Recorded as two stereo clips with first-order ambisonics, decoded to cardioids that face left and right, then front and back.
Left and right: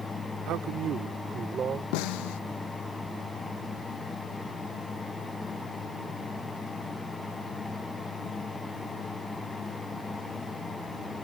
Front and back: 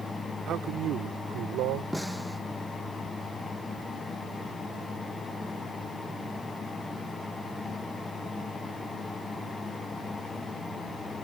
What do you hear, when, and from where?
0.5 s a man speaking: 130° right; by 1.8 s 155° right
1.9 s a snare drum: 90° left